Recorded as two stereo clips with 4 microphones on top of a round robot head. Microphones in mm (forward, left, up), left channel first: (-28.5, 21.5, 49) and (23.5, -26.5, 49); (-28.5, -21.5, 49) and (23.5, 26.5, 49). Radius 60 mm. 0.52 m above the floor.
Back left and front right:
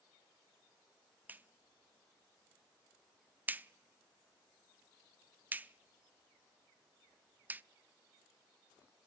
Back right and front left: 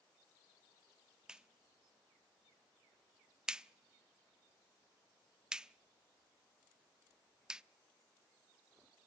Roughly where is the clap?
Ahead.